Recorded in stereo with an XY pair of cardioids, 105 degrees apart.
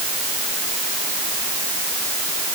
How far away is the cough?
I don't hear a cough.